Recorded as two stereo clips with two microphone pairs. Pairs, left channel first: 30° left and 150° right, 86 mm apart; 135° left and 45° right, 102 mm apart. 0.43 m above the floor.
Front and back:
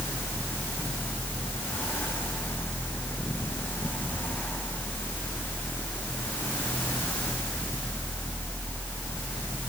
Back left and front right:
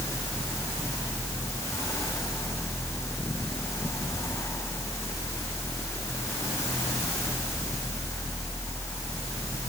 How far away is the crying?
I don't hear crying.